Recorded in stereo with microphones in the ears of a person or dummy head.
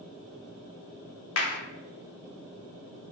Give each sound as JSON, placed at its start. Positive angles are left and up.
{"t": 1.4, "sound": "a clap", "side_deg": 90, "distance_m": 0.7}